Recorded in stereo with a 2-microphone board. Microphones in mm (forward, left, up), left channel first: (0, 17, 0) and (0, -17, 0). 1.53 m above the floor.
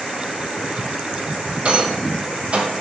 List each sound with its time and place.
1.6 s a rattle: 40° right (ahead or behind), 0.8 m